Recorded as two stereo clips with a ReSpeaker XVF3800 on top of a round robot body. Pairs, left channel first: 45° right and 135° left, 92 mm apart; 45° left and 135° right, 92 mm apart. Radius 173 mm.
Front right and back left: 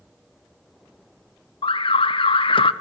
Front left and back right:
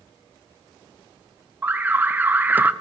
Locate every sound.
1.6 s an alarm: 65° right, 0.8 m